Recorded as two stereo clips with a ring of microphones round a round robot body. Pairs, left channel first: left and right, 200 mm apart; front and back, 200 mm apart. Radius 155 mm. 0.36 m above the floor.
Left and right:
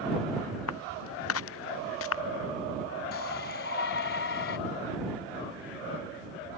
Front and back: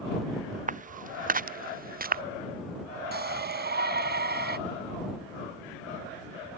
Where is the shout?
140° left.